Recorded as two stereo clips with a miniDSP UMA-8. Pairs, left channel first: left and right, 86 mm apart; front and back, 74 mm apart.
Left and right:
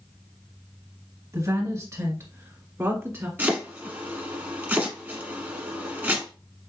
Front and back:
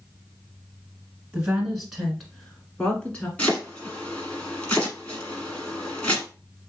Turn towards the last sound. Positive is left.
turn(degrees=-55)